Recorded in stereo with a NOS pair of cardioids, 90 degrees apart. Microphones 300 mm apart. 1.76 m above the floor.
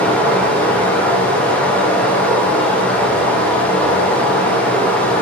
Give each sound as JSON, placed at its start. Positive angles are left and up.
{"t": 0.0, "sound": "running water", "azimuth_deg": 5, "distance_m": 0.9}